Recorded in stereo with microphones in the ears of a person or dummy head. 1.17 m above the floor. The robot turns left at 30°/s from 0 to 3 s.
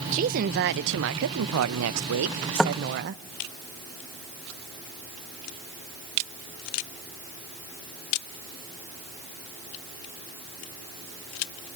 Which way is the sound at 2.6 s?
10° left (ahead or behind).